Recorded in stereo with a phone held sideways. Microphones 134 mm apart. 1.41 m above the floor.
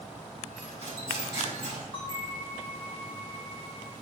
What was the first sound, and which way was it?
Cutlery clinking, 65° left (ahead or behind).